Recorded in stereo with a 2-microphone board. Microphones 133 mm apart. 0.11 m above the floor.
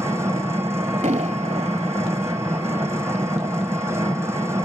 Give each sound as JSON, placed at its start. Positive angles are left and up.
{"t": 0.0, "sound": "an engine running", "side_deg": -20, "distance_m": 1.4}
{"t": 1.0, "sound": "an explosion", "side_deg": -55, "distance_m": 0.6}